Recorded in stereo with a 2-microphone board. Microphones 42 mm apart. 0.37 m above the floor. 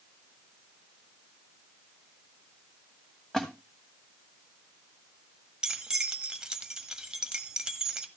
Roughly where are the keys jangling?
Centre.